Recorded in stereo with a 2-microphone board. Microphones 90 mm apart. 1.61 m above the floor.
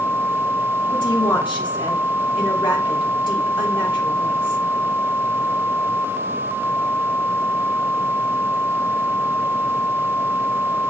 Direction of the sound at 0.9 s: 60° left (ahead or behind).